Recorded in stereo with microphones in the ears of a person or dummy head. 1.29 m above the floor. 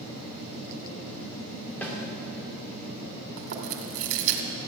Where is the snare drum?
10° left (ahead or behind), 2 m.